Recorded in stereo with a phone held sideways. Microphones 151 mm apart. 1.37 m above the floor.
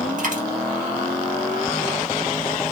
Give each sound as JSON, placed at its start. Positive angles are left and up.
{"t": 0.2, "sound": "a dropped coin", "side_deg": -65, "distance_m": 2.5}